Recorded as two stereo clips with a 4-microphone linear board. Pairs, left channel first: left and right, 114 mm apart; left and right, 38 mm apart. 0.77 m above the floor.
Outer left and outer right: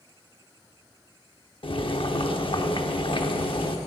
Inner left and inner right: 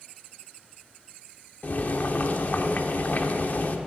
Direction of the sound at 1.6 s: 45° left (ahead or behind).